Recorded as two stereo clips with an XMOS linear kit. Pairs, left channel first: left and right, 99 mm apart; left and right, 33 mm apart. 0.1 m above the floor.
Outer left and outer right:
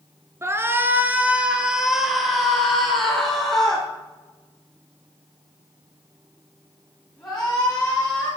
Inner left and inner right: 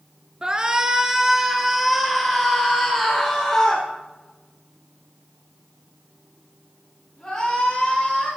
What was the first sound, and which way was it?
A shout, 25° right (ahead or behind).